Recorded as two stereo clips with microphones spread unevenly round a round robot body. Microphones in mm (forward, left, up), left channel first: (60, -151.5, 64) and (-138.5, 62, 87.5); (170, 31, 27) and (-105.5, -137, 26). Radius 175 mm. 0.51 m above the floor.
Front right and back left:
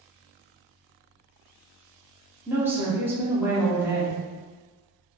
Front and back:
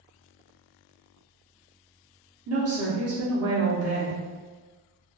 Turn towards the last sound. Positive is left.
turn(degrees=-140)